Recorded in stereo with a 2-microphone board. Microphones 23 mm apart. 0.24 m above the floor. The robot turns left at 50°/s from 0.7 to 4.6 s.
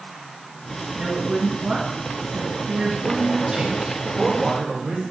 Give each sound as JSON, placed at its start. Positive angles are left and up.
{"t": 0.9, "sound": "a woman speaking", "azimuth_deg": -15, "distance_m": 2.5}
{"t": 3.0, "sound": "a man speaking", "azimuth_deg": -85, "distance_m": 4.5}